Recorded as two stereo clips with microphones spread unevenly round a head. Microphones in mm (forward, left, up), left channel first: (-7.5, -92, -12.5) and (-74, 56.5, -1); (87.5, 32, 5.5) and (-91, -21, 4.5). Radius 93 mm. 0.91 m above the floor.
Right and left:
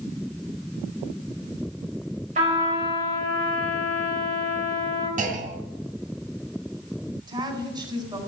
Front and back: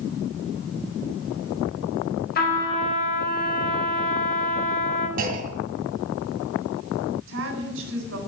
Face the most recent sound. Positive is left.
turn(degrees=175)